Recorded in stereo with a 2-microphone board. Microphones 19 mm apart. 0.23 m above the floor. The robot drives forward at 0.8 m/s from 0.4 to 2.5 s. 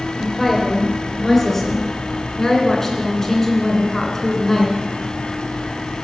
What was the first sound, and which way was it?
A woman speaking, 15° left (ahead or behind).